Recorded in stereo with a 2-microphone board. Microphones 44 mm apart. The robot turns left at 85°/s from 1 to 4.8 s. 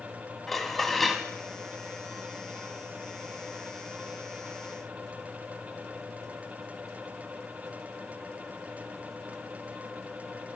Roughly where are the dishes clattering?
Centre.